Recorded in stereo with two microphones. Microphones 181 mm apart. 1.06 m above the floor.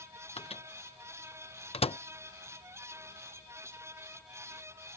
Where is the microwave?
35° left (ahead or behind).